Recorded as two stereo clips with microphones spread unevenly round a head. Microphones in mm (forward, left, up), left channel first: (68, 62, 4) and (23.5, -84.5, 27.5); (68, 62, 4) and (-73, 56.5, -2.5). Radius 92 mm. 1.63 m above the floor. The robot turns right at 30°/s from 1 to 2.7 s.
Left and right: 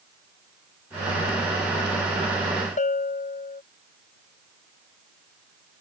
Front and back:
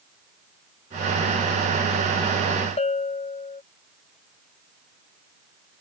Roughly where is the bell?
Ahead left.